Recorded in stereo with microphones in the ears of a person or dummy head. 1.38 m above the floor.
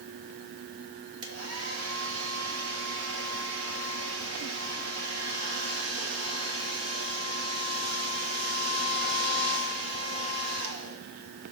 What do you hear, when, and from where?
1.2 s a hair dryer: 75° right (ahead or behind), 1.5 m